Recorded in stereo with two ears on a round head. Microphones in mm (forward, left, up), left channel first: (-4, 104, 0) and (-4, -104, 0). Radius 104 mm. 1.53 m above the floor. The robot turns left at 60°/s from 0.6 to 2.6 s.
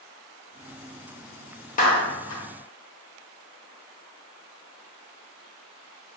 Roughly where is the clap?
Left.